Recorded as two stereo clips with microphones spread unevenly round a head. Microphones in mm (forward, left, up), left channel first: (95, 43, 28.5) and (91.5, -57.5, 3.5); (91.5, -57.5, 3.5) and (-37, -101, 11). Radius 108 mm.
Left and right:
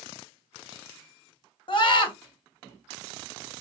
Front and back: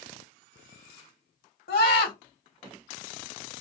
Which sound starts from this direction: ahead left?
A scream, at 1.7 s.